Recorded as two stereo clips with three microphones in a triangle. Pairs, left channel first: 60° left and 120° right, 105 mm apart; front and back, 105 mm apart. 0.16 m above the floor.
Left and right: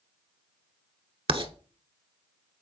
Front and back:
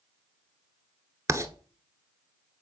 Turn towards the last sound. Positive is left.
turn(degrees=-125)